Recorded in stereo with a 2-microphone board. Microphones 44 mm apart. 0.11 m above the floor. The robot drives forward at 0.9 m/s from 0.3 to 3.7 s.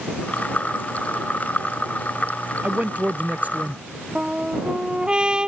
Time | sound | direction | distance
2.6 | a man speaking | 30° right (ahead or behind) | ?
4.2 | a trumpet | 20° right (ahead or behind) | ?